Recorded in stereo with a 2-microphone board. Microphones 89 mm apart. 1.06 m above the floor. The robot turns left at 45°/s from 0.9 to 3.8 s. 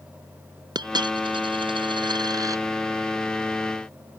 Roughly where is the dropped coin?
Ahead right.